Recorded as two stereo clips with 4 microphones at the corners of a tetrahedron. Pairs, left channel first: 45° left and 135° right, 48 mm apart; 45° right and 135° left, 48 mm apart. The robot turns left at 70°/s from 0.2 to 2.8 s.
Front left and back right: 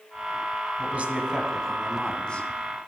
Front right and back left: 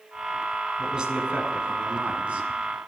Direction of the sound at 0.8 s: 155° right.